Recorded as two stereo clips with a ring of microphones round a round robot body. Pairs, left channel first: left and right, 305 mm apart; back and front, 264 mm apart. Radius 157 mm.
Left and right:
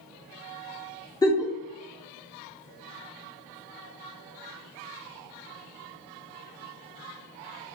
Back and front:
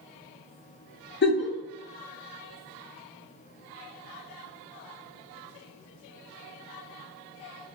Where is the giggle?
165° left, 0.7 m.